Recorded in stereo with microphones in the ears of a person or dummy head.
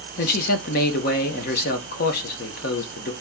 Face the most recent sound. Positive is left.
turn(degrees=55)  # may be behind; listen again after turning